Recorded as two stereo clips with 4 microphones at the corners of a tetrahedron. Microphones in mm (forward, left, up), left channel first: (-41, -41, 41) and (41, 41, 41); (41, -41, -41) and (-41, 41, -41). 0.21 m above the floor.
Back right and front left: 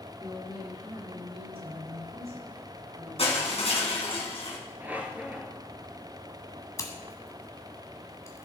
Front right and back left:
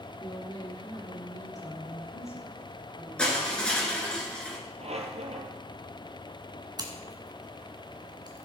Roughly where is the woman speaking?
Ahead.